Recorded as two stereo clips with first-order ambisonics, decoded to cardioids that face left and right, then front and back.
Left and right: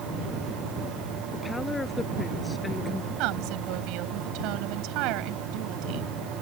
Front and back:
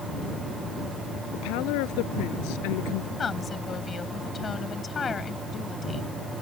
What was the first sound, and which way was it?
A woman speaking, 10° left.